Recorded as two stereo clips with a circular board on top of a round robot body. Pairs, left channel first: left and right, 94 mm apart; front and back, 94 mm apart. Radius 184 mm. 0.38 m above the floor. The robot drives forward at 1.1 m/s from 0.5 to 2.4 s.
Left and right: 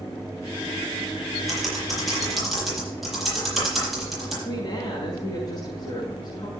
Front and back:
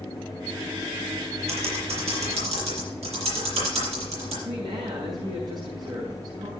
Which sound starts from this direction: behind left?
A woman speaking, at 4.4 s.